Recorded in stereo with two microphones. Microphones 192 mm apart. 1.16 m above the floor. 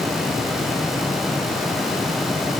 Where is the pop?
I don't hear a pop.